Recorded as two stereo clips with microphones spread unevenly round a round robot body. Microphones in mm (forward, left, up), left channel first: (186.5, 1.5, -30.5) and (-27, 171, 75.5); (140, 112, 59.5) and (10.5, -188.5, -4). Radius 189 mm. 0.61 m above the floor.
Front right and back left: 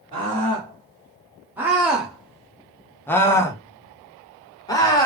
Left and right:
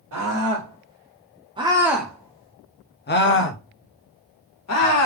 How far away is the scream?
About 1.5 m.